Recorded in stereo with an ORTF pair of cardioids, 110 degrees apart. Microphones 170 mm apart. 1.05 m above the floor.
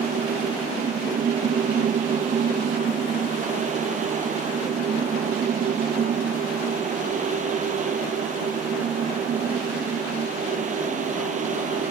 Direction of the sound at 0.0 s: 45° right.